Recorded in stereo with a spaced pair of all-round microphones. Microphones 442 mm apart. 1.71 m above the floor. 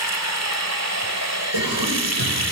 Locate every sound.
0.0 s running water: 35° right (ahead or behind), 1.9 m
1.5 s a cough: 55° right (ahead or behind), 6 m